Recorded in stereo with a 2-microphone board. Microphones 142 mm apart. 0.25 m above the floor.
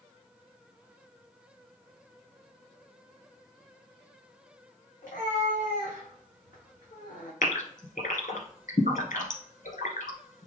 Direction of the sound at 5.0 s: 65° left (ahead or behind).